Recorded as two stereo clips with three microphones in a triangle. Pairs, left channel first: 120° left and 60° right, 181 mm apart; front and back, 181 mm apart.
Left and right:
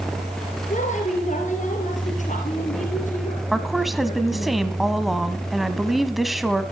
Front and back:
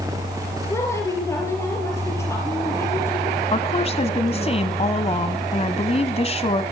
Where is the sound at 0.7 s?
75° left, 3.5 m.